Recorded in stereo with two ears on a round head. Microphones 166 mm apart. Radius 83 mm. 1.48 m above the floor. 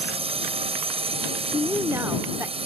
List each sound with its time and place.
0.0 s a drone: 35° right (ahead or behind)
1.5 s a woman speaking: 15° right (ahead or behind)